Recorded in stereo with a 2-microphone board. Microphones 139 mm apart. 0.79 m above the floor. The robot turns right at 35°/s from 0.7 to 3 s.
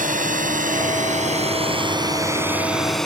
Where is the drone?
70° right (ahead or behind); by 3.1 s centre (ahead or behind).